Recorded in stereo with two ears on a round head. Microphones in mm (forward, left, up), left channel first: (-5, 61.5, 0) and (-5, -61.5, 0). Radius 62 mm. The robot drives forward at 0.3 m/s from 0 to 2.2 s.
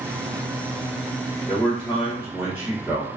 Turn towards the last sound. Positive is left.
turn(degrees=-10)  # may be behind; listen again after turning